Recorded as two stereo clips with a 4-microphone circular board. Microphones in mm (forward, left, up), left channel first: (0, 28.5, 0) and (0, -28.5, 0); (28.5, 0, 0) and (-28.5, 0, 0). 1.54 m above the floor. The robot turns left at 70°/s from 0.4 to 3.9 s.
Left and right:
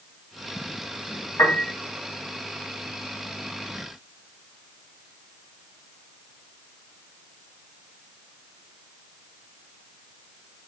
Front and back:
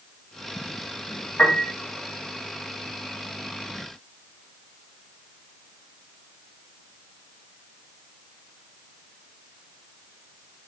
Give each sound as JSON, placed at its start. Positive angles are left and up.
{"t": 1.4, "sound": "a piano", "azimuth_deg": 60, "distance_m": 3.0}